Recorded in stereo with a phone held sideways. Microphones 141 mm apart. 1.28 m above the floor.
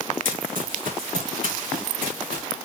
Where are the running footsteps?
75° right (ahead or behind), 4.5 m; by 2.4 s 80° right, 6.5 m.